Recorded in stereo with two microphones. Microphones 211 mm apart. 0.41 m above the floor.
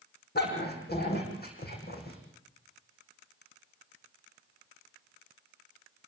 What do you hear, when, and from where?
0.3 s a dog barking: 55° left (ahead or behind), 7.5 m; by 2.2 s 50° left (ahead or behind), 9 m